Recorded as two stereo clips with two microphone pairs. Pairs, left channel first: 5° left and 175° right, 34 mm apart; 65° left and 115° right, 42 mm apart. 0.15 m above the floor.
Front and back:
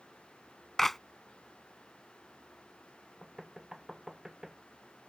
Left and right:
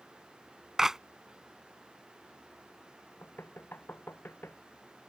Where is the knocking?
105° left.